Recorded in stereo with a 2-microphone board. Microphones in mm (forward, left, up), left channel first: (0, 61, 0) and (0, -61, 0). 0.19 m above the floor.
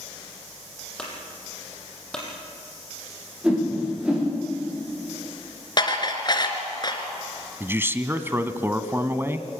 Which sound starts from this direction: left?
Dishes clattering, at 5.8 s.